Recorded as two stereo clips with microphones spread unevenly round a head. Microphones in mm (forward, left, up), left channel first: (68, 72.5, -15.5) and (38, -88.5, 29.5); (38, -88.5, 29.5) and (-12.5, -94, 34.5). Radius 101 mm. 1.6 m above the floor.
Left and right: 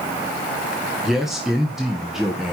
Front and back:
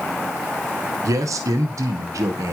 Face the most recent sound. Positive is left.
turn(degrees=170)